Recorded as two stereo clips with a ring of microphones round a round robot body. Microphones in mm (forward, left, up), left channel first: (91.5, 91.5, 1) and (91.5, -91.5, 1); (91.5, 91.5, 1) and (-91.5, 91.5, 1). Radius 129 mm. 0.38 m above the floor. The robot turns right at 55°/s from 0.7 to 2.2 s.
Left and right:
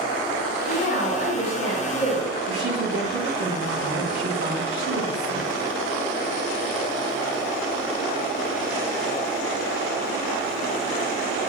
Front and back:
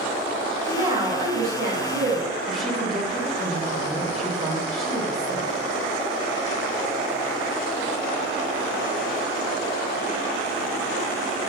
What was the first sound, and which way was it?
A woman speaking, 100° left.